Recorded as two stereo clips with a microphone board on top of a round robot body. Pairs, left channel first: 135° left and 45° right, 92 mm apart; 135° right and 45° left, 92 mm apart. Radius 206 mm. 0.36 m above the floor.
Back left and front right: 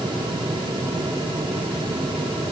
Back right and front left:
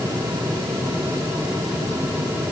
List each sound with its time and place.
Only background noise.